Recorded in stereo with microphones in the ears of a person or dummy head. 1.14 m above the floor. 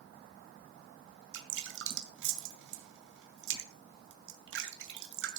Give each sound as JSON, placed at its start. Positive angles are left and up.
{"t": 1.3, "sound": "dripping", "side_deg": -75, "distance_m": 2.0}